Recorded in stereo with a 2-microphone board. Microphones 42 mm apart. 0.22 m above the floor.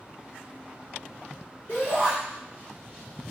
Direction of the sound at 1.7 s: 35° left (ahead or behind).